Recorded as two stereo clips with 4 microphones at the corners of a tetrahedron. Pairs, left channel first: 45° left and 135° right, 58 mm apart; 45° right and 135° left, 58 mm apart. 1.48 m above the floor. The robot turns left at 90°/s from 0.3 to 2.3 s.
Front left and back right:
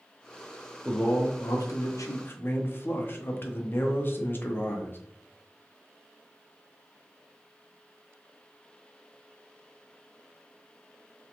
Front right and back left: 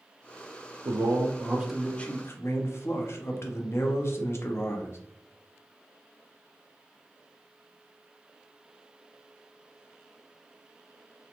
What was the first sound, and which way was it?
A man speaking, 125° left.